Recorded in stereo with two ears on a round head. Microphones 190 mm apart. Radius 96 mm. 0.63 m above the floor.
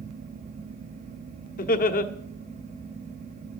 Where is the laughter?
40° left (ahead or behind), 1.2 m.